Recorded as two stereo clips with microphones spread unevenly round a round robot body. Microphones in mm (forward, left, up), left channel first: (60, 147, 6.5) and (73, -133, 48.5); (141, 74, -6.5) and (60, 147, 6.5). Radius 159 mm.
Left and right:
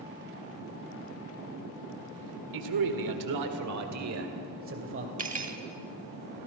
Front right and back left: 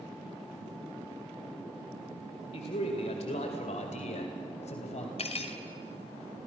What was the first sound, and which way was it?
A man speaking, 95° right.